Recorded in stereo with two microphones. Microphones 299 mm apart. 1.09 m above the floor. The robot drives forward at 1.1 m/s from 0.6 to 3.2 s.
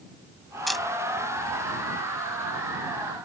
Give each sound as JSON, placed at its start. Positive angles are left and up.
{"t": 0.7, "sound": "a camera shutter", "side_deg": 0}